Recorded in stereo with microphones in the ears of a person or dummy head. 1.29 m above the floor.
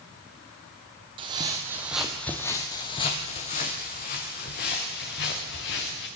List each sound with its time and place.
1.2 s footsteps: 30° right (ahead or behind), 2.5 m; by 6.1 s 60° left (ahead or behind), 6.5 m